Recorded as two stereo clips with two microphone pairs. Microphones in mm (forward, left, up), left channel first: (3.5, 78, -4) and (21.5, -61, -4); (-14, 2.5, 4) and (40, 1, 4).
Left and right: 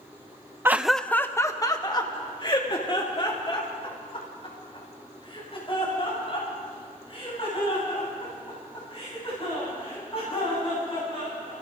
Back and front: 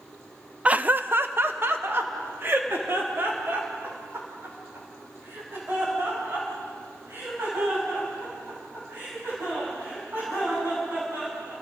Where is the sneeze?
No sneeze in this recording.